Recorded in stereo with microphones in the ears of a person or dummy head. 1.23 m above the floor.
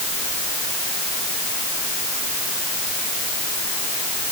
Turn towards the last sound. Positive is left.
No sound to turn to.